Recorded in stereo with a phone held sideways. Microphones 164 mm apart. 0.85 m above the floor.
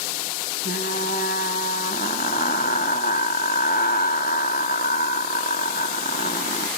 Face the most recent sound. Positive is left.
turn(degrees=70)  # may be behind; listen again after turning